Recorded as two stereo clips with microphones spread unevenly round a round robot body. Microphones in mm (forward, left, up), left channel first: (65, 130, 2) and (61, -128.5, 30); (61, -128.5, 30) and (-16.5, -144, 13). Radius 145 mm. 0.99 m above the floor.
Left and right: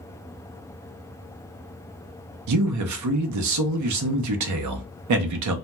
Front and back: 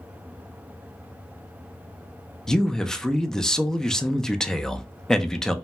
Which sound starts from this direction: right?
A man speaking, at 2.5 s.